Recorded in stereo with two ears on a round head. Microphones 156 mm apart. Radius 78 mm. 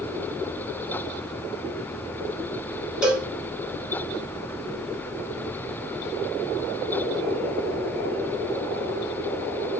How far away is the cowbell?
About 4.5 m.